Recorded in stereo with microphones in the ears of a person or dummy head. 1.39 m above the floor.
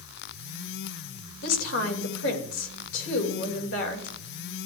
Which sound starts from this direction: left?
A woman speaking, at 1.4 s.